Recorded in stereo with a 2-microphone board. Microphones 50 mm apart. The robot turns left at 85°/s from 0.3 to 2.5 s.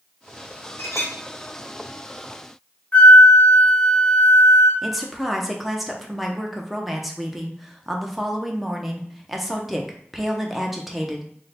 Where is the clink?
120° left, 1.2 m; by 1.1 s 90° left, 1.2 m.